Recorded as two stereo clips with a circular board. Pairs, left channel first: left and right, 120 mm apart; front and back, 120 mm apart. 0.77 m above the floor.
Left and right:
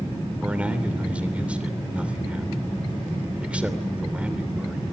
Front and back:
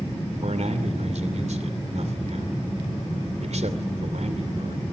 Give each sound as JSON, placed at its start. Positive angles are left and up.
{"t": 0.4, "sound": "a man speaking", "azimuth_deg": -170, "distance_m": 2.5}